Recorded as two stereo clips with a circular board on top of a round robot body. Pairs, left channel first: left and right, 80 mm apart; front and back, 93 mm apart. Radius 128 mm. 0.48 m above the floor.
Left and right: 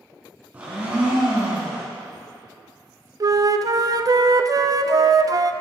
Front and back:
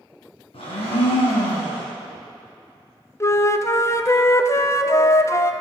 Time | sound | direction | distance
0.5 | a blender | 20° right | 2.5 m
3.2 | a flute | 55° right | 0.5 m